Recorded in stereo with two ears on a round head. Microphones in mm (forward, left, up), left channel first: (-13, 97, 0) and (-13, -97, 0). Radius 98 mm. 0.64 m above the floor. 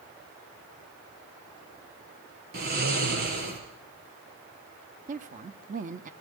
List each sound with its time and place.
2.5 s snoring: 45° right (ahead or behind), 4 m
5.1 s a woman speaking: 35° right (ahead or behind), 1.0 m